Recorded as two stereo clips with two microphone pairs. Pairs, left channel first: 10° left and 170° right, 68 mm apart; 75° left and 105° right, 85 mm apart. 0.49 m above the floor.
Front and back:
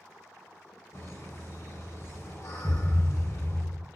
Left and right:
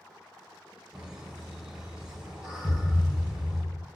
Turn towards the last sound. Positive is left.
turn(degrees=50)